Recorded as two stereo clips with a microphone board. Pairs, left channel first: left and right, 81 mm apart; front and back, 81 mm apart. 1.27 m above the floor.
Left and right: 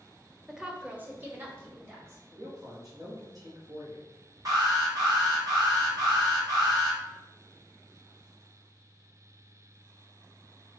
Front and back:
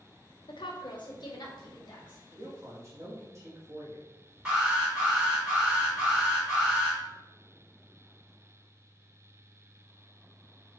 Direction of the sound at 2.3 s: 130° right.